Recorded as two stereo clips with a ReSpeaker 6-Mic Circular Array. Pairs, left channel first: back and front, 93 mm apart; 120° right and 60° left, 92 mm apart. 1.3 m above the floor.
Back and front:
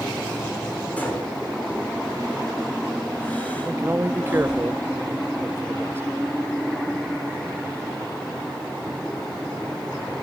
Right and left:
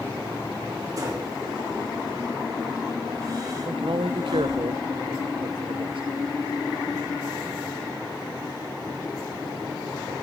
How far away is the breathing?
About 5.5 m.